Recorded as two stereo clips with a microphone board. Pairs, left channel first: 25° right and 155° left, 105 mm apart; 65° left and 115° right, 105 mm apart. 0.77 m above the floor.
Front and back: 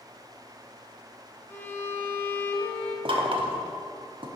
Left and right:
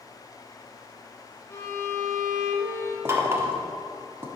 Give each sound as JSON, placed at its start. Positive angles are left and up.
{"t": 1.5, "sound": "a violin", "azimuth_deg": 30, "distance_m": 1.1}
{"t": 3.0, "sound": "knocking", "azimuth_deg": -175, "distance_m": 1.0}